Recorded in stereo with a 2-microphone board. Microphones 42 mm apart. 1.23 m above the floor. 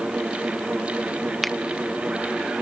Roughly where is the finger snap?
Centre.